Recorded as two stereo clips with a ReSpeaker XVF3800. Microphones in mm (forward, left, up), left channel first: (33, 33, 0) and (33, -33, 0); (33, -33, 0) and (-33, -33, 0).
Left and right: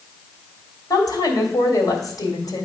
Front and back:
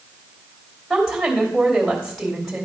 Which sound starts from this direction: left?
A woman speaking, at 0.9 s.